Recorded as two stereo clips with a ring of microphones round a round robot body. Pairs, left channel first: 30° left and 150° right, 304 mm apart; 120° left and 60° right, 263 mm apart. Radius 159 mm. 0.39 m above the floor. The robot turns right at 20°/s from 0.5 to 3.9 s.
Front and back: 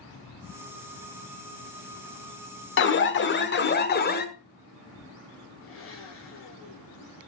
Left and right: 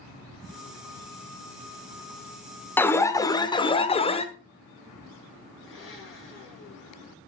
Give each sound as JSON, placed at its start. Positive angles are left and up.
{"t": 2.8, "sound": "an alarm", "azimuth_deg": 40, "distance_m": 1.1}
{"t": 5.6, "sound": "a blender", "azimuth_deg": 80, "distance_m": 8.5}